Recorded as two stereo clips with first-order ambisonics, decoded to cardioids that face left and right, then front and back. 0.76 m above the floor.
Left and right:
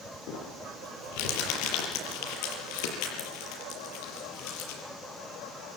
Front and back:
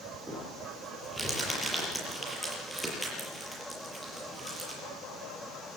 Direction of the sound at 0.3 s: 90° left.